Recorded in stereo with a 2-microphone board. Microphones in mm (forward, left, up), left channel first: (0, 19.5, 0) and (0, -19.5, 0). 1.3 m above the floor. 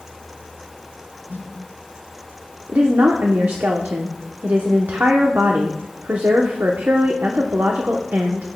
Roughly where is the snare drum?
Right.